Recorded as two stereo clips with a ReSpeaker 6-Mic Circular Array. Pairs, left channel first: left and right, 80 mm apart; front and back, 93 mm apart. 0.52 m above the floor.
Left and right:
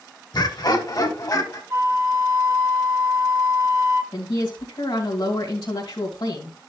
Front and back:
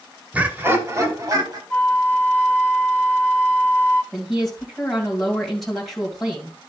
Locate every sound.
0.3 s laughter: 105° left, 1.7 m; by 1.6 s 135° left, 3 m
1.7 s a flute: 65° right, 1.5 m
4.1 s a woman speaking: 90° left, 2.5 m